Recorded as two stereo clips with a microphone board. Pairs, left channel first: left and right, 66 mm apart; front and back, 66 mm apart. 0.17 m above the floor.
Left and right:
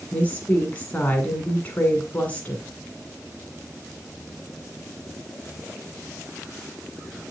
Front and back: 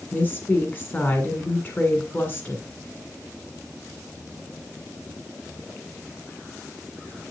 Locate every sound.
0.1 s a woman speaking: 35° left, 1.8 m